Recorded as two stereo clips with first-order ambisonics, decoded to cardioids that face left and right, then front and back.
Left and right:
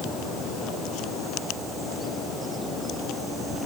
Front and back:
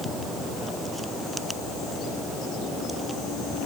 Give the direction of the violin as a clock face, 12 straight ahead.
I don't hear a violin.